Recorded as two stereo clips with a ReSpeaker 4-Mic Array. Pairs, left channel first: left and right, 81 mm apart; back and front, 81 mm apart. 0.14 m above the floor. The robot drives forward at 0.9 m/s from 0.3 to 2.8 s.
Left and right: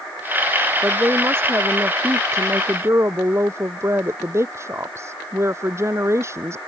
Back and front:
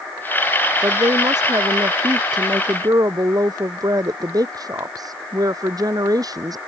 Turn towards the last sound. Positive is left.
turn(degrees=-35)